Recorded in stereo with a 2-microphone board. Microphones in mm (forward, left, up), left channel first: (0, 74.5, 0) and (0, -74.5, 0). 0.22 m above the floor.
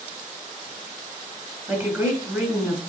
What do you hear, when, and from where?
1.7 s a woman speaking: 20° right (ahead or behind), 2.5 m